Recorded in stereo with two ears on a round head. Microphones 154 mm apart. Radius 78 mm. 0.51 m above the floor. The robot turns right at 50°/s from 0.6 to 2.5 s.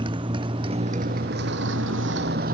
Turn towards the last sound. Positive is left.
turn(degrees=-50)  # may be behind; listen again after turning